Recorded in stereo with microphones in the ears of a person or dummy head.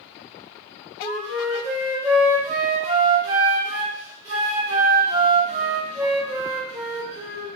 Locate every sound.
1.0 s a flute: 10° right (ahead or behind), 2 m